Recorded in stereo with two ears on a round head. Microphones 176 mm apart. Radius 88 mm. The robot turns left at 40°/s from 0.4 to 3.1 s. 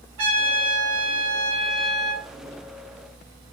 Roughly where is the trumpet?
Right.